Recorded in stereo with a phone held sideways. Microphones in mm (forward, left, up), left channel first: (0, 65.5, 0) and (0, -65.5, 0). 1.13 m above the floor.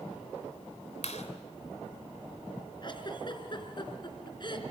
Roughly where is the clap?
Left.